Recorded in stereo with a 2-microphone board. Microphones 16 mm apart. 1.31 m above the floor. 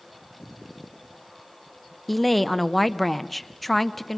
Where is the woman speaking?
5° left (ahead or behind), 0.8 m.